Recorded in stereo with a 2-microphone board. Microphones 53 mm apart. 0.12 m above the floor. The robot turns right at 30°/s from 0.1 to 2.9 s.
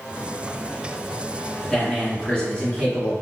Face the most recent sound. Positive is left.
turn(degrees=20)  # may be behind; listen again after turning